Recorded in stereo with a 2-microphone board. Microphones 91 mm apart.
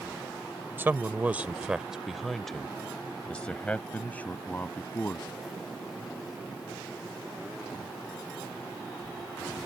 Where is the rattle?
I don't hear a rattle.